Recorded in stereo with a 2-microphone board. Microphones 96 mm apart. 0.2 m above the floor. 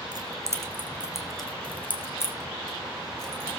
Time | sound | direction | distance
0.1 | keys jangling | 45° right (ahead or behind) | 2.5 m